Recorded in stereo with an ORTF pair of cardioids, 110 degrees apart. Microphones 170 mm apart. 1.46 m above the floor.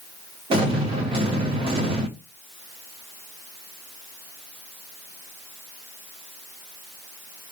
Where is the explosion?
30° right, 2.5 m.